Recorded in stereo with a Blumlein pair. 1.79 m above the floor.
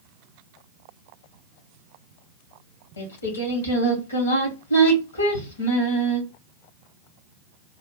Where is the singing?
70° left, 1.9 m.